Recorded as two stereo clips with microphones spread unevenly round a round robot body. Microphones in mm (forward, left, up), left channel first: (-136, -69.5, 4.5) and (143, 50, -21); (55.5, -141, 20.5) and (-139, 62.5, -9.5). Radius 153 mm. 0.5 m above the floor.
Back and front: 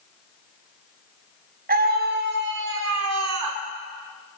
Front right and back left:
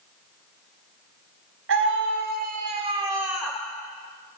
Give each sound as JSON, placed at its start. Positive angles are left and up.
{"t": 1.7, "sound": "a scream", "azimuth_deg": 85, "distance_m": 3.5}